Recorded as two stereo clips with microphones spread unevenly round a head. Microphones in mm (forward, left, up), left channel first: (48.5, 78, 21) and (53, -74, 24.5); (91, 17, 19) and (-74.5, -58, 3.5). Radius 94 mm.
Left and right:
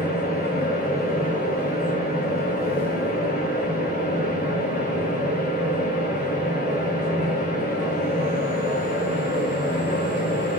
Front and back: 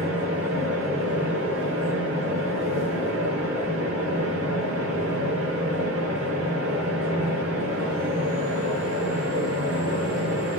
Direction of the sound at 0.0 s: 100° left.